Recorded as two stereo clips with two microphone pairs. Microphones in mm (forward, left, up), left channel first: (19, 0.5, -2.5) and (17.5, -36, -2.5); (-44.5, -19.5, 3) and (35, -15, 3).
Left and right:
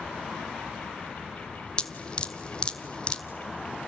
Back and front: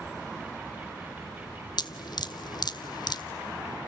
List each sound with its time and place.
1.8 s dripping: 155° left, 0.8 m